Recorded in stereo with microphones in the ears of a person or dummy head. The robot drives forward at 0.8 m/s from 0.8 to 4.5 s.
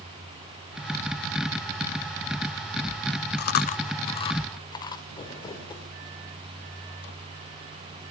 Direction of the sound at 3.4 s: 55° left (ahead or behind).